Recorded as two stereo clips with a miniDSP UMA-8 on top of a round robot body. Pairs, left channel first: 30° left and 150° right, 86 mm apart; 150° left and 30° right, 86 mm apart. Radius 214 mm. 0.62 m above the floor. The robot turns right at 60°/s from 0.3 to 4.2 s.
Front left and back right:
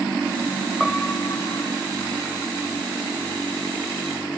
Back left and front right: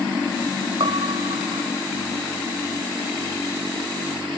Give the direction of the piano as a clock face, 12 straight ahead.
2 o'clock.